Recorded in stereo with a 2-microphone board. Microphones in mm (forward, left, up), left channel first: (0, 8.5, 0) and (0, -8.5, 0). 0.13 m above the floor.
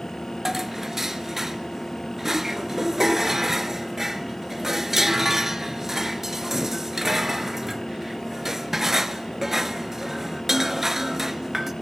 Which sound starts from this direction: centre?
Dishes clattering, at 0.5 s.